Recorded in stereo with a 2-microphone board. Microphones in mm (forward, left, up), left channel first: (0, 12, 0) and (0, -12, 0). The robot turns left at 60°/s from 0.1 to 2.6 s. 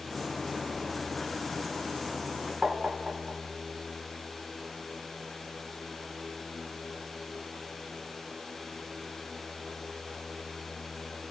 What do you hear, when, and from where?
2.6 s tapping: 30° right (ahead or behind), 0.6 m